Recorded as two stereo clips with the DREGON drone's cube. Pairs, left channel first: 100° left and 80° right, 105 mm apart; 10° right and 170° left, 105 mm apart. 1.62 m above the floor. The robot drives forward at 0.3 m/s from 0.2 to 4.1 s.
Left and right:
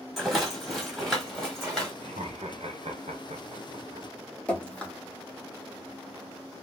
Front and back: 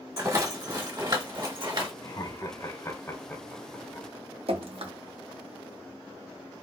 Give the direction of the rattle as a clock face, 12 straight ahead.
5 o'clock.